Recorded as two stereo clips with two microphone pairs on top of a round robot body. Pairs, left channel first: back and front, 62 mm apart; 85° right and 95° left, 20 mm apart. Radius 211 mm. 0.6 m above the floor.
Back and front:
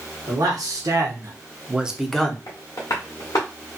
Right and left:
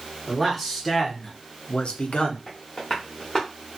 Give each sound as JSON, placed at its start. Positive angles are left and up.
{"t": 0.3, "sound": "a man speaking", "azimuth_deg": 10, "distance_m": 1.3}
{"t": 2.5, "sound": "tapping", "azimuth_deg": -145, "distance_m": 0.5}